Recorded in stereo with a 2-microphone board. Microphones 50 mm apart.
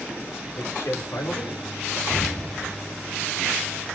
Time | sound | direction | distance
0.6 | a man speaking | 70° left (ahead or behind) | 3.5 m
2.1 | an explosion | 15° left (ahead or behind) | 8 m